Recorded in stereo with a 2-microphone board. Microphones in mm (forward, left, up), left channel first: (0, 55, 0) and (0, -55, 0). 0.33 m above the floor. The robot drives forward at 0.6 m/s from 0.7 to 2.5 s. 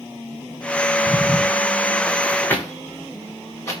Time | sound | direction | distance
1.1 | footsteps | 5° right (ahead or behind) | 1.2 m